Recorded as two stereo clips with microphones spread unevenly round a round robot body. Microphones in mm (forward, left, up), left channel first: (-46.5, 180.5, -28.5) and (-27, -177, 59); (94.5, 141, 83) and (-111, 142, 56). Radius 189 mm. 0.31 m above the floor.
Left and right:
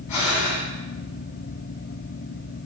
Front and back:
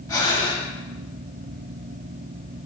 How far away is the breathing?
About 3 m.